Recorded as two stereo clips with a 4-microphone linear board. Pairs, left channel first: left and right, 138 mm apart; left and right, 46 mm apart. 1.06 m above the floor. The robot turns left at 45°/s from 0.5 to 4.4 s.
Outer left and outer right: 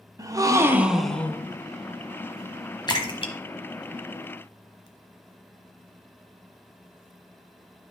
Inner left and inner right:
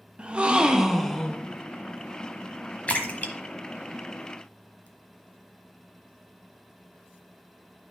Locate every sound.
0.2 s a gasp: 155° right, 0.6 m; by 1.5 s 160° left, 0.6 m
2.9 s a splash: 30° left (ahead or behind), 1.1 m; by 4.9 s 40° left (ahead or behind), 1.1 m